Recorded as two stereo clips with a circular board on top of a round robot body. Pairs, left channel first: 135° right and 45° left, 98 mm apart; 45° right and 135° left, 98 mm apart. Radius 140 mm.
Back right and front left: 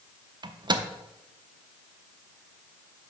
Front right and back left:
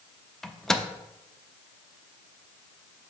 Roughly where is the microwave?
Ahead left.